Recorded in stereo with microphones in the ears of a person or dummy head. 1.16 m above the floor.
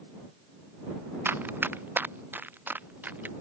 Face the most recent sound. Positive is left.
turn(degrees=-5)  # may be behind; listen again after turning